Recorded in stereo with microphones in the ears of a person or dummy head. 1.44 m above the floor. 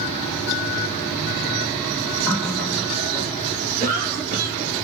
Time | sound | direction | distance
2.3 | a running tap | 5° left (ahead or behind) | 2 m
3.8 | a cough | 35° right (ahead or behind) | 2.5 m